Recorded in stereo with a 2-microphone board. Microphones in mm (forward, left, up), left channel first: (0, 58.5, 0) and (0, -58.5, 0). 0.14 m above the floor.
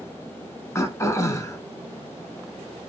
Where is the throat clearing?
25° left (ahead or behind), 0.6 m.